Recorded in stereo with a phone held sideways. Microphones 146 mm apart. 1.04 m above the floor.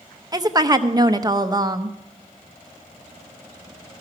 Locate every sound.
0.3 s a woman speaking: 25° right (ahead or behind), 0.7 m